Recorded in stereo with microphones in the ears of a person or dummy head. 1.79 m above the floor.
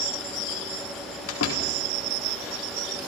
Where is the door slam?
80° left, 4 m.